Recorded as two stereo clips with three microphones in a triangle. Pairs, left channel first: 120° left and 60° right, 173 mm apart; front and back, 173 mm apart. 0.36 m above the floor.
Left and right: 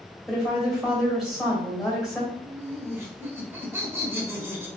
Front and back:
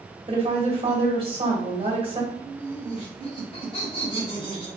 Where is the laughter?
5° left, 1.5 m.